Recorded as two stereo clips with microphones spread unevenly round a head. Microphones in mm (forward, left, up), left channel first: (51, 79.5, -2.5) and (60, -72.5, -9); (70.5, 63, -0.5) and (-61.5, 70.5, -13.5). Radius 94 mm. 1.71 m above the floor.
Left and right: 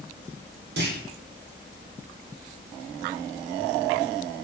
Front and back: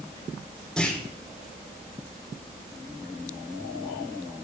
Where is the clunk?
90° right, 3 m.